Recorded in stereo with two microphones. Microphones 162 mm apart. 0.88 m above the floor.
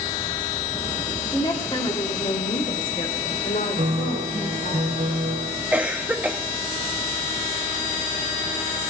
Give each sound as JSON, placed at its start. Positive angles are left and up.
{"t": 1.2, "sound": "a woman speaking", "side_deg": 20, "distance_m": 1.9}
{"t": 3.8, "sound": "a piano", "side_deg": -60, "distance_m": 1.7}
{"t": 5.7, "sound": "a cough", "side_deg": -10, "distance_m": 0.9}